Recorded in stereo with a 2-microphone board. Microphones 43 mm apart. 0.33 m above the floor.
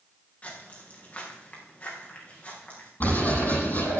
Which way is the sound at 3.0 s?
50° left (ahead or behind).